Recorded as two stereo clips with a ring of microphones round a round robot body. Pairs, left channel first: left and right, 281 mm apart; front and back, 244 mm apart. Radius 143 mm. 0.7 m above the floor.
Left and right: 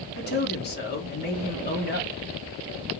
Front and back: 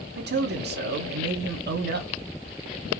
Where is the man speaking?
140° left, 1.4 m.